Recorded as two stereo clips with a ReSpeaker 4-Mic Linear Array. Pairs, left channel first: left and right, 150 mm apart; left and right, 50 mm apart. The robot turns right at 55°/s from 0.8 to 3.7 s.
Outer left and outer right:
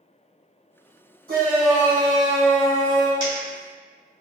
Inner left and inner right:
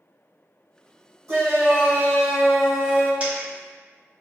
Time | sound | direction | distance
1.3 | a shout | 75° right | 1.2 m
3.2 | a dropped coin | 30° right (ahead or behind) | 1.9 m